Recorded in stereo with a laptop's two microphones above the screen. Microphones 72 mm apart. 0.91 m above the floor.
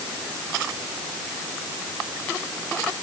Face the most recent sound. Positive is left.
No sound to turn to.